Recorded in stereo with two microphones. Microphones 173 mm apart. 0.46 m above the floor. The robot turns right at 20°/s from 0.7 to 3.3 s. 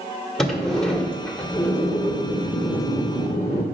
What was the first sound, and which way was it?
A sliding door, straight ahead.